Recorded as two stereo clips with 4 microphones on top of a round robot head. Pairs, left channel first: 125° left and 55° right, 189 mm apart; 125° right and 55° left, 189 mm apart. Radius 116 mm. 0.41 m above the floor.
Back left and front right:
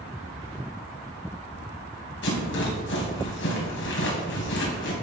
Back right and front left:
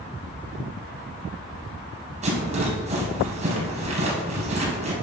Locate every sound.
2.2 s a rattle: 110° left, 4.5 m